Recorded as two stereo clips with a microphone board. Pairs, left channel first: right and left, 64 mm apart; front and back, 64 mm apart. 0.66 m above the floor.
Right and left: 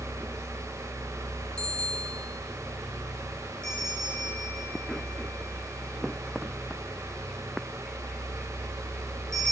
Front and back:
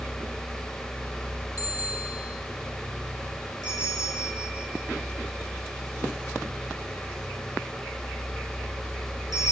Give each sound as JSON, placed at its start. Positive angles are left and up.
{"t": 1.6, "sound": "a bicycle bell", "azimuth_deg": -15, "distance_m": 6.0}
{"t": 3.6, "sound": "a bell", "azimuth_deg": -10, "distance_m": 8.5}